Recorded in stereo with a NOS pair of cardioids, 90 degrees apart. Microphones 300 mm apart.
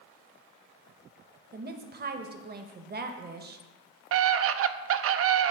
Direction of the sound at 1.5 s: 30° right.